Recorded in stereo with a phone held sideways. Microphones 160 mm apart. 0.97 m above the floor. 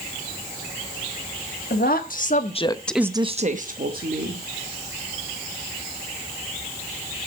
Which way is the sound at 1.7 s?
65° left (ahead or behind).